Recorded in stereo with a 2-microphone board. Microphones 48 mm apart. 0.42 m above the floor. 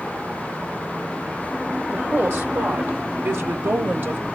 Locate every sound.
1.9 s a woman speaking: 50° right (ahead or behind), 1.5 m